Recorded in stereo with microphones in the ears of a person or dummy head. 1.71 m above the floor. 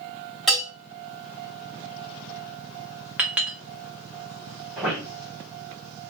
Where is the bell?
Centre (ahead or behind), 2.5 m.